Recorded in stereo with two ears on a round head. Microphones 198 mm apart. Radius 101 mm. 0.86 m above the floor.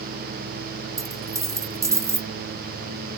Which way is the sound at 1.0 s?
15° right (ahead or behind).